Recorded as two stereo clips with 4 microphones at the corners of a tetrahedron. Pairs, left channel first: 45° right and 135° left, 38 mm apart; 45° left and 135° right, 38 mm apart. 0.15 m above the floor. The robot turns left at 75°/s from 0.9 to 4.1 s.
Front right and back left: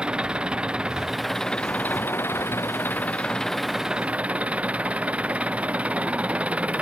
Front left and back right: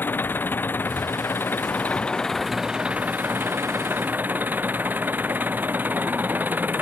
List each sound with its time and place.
0.0 s an engine running: 70° left; by 6.8 s 170° right